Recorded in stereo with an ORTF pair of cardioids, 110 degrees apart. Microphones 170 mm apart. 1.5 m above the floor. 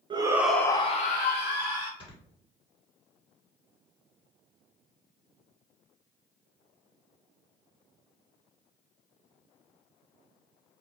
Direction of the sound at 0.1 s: 30° right.